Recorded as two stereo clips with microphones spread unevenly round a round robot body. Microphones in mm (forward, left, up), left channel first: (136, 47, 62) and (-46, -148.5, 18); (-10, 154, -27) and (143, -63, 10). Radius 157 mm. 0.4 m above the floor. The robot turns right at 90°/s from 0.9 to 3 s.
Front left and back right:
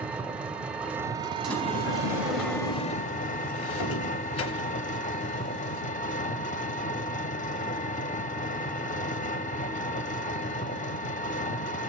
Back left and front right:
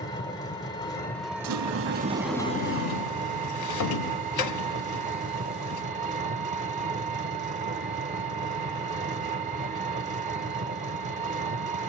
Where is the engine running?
165° left, 0.8 m; by 11.9 s 5° right, 0.8 m.